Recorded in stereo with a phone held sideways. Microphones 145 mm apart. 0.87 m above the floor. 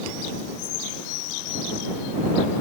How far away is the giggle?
I don't hear a giggle.